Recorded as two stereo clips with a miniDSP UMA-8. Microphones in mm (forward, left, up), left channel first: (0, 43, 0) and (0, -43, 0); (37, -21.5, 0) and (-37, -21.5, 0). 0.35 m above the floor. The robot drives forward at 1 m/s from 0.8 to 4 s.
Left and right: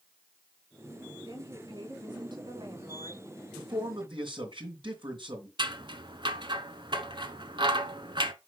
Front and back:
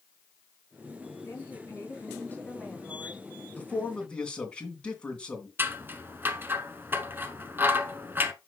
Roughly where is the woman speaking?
Ahead right.